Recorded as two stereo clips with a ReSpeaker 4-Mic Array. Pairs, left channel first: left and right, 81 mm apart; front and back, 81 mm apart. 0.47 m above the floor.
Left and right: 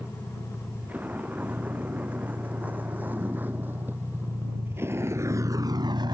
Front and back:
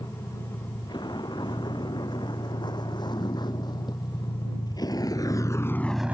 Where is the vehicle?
20° right; by 6.2 s 115° right.